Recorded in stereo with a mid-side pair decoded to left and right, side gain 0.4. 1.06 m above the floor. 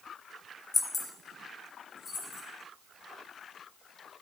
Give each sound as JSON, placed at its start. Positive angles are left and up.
{"t": 0.7, "sound": "keys jangling", "azimuth_deg": 30, "distance_m": 0.8}